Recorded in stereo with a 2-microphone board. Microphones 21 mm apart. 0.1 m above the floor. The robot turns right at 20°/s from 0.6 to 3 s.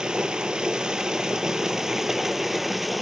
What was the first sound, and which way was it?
Running water, 60° right.